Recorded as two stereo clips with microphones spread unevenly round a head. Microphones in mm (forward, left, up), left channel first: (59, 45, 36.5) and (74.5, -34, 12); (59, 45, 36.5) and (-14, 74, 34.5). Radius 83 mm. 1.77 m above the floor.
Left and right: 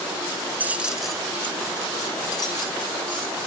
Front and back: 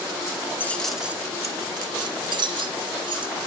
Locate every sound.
0.6 s keys jangling: straight ahead, 0.8 m; by 3.5 s 150° left, 2.5 m